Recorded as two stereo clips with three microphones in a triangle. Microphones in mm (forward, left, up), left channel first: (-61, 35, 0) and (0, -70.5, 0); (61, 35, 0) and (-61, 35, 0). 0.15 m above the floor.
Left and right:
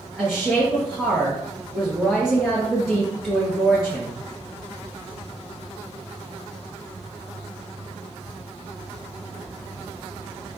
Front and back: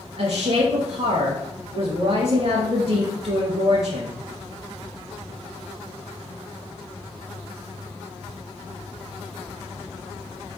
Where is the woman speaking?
150° right, 3.5 m.